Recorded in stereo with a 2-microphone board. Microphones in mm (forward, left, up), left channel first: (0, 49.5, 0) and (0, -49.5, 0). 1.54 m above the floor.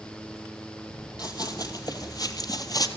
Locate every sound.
1.2 s running footsteps: 45° left (ahead or behind), 2.5 m; by 2.9 s 40° left (ahead or behind), 2.0 m